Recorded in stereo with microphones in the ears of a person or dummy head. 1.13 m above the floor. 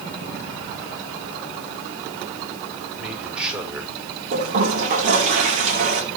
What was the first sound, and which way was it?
A man speaking, centre (ahead or behind).